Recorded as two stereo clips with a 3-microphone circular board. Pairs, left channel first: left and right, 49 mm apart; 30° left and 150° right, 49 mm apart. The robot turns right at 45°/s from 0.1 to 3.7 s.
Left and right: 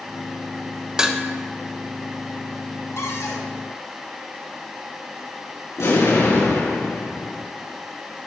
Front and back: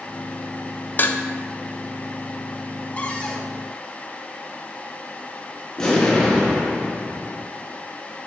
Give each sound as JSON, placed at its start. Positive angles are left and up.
{"t": 1.0, "sound": "dishes clattering", "azimuth_deg": -15, "distance_m": 0.6}
{"t": 3.0, "sound": "a cupboard door", "azimuth_deg": 85, "distance_m": 1.1}
{"t": 5.8, "sound": "an explosion", "azimuth_deg": 110, "distance_m": 4.0}